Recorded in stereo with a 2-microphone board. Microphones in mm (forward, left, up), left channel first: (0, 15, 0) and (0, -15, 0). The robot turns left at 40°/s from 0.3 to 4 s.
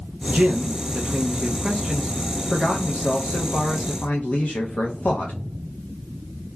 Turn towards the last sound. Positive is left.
turn(degrees=100)